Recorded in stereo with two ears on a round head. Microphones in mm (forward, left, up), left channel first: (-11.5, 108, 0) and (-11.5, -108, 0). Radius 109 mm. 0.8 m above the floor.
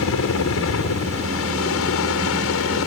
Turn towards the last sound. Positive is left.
turn(degrees=60)  # may be behind; listen again after turning